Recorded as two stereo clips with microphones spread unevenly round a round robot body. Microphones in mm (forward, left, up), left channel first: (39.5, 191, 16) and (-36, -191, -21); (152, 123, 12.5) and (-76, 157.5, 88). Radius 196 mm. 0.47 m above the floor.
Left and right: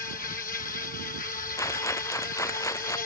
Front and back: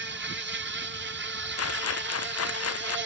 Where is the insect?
140° left.